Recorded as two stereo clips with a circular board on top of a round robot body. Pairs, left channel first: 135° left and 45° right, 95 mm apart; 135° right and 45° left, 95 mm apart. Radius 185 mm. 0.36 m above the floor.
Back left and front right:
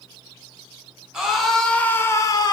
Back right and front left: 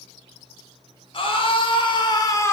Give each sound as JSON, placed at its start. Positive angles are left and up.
{"t": 1.1, "sound": "a scream", "azimuth_deg": -130, "distance_m": 2.0}